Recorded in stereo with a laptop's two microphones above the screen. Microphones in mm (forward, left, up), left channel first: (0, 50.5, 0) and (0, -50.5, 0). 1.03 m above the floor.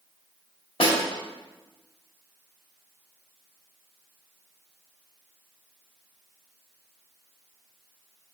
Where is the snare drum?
70° left (ahead or behind), 1.7 m.